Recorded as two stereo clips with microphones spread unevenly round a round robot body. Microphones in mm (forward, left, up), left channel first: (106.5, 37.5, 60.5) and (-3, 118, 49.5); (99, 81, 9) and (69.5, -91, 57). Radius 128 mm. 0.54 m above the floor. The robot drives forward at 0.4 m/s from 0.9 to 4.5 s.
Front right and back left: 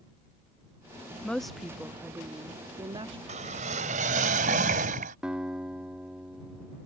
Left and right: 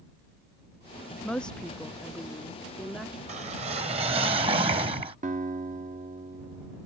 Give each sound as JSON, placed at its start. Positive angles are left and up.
{"t": 1.2, "sound": "a woman speaking", "azimuth_deg": 50}
{"t": 3.3, "sound": "a whoosh", "azimuth_deg": -165}
{"t": 5.2, "sound": "a guitar", "azimuth_deg": -145}